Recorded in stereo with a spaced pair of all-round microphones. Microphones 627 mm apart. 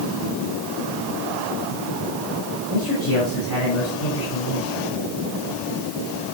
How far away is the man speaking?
About 8.5 m.